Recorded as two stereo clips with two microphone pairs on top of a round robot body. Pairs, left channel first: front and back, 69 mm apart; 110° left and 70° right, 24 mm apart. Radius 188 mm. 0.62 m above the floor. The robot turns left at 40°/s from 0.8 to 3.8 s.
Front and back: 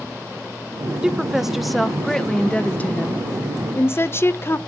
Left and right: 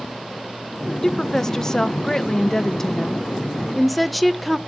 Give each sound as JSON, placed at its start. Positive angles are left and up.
{"t": 1.0, "sound": "a woman speaking", "azimuth_deg": 145, "distance_m": 1.0}